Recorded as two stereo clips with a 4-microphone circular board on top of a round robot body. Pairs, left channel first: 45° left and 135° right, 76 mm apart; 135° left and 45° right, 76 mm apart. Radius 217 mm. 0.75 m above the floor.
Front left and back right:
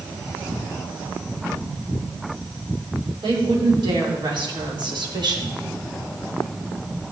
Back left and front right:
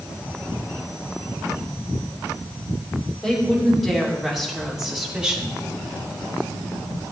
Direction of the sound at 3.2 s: 140° right.